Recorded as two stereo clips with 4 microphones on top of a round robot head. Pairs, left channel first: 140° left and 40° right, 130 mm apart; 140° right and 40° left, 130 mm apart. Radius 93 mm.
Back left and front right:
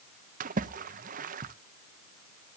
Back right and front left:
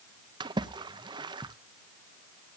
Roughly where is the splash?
Ahead.